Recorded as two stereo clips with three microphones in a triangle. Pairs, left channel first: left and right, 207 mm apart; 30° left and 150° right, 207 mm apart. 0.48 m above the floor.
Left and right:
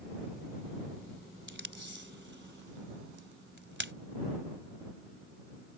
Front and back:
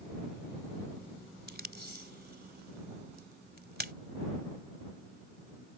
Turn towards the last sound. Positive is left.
turn(degrees=-115)